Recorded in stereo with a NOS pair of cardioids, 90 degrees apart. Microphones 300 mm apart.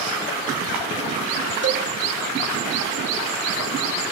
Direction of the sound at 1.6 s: 40° right.